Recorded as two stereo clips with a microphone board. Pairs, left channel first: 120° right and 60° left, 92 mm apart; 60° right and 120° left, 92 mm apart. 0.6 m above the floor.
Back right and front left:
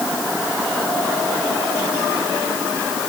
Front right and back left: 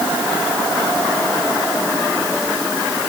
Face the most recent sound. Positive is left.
No sound to turn to.